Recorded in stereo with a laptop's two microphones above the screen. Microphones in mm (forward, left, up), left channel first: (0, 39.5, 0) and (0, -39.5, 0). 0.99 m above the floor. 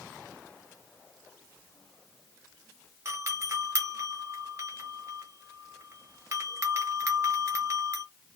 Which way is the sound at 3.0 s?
35° right (ahead or behind).